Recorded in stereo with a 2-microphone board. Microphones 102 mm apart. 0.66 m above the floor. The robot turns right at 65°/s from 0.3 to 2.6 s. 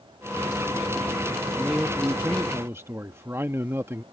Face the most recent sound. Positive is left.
turn(degrees=-25)  # may be behind; listen again after turning